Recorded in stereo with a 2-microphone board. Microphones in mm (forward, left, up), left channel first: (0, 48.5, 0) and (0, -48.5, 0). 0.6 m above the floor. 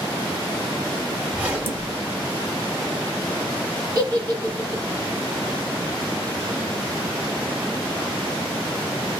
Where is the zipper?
15° right (ahead or behind), 0.7 m.